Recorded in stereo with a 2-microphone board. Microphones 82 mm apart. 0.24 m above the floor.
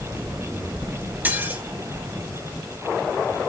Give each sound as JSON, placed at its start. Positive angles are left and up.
{"t": 1.2, "sound": "dishes clattering", "side_deg": -25, "distance_m": 2.0}